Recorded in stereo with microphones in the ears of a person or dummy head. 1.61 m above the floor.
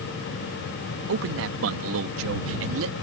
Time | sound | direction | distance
1.1 | a man speaking | 70° right (ahead or behind) | ?